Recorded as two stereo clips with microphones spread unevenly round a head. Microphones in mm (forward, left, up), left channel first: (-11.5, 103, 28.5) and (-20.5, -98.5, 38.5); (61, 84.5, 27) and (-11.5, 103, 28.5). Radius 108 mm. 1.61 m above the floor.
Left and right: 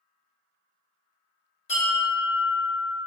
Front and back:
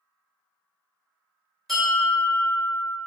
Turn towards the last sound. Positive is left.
turn(degrees=70)